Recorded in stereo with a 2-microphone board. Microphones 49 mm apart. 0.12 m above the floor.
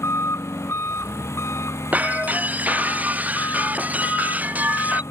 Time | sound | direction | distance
0.0 | an engine running | 75° left (ahead or behind) | ?
1.9 | breaking glass | 30° right (ahead or behind) | ?